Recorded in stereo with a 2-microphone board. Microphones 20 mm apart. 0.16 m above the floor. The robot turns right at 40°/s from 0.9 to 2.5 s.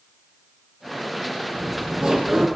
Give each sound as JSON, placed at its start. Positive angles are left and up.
{"t": 1.5, "sound": "laughter", "azimuth_deg": -65, "distance_m": 5.0}